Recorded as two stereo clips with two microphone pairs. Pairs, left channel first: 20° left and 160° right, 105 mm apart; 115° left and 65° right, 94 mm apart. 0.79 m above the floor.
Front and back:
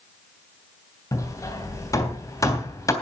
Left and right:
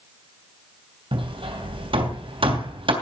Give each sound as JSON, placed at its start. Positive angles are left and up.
{"t": 1.1, "sound": "hammering", "azimuth_deg": -40, "distance_m": 3.0}